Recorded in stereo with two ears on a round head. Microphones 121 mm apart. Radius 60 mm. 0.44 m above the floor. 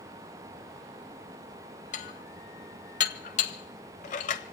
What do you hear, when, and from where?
1.9 s dishes clattering: 55° left (ahead or behind), 1.0 m